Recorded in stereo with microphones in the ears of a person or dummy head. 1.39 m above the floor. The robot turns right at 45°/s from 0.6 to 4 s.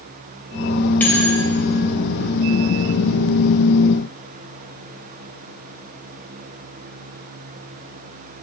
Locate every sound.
1.0 s a bell: 10° left (ahead or behind), 3 m; by 1.4 s 5° right (ahead or behind), 3 m